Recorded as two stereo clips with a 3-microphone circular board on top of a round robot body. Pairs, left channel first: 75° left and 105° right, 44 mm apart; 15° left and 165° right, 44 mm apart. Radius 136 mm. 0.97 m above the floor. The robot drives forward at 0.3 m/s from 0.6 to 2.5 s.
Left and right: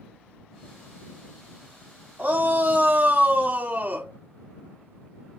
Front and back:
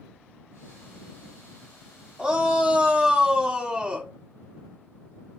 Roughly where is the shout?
Right.